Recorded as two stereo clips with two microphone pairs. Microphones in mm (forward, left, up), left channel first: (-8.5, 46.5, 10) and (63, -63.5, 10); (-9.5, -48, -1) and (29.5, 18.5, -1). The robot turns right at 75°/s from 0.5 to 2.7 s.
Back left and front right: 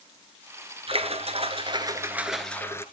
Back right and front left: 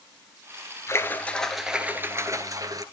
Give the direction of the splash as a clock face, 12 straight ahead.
3 o'clock.